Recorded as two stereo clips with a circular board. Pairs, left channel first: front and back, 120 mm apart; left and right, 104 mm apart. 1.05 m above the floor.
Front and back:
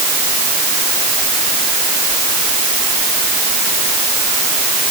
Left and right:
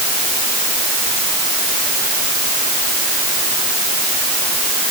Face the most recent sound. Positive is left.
No sound to turn to.